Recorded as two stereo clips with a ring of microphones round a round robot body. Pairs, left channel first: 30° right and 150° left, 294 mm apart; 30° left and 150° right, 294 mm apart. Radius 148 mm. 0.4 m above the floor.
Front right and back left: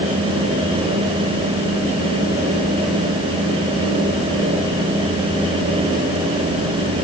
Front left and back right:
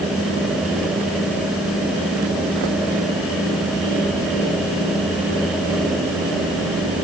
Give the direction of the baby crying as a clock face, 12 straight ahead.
No baby crying in this recording.